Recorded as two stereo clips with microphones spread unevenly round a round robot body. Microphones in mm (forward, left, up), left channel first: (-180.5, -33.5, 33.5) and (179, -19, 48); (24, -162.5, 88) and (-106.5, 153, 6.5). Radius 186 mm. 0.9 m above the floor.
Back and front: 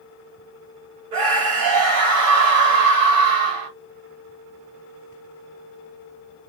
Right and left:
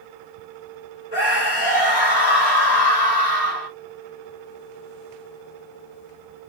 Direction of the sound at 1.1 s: 30° right.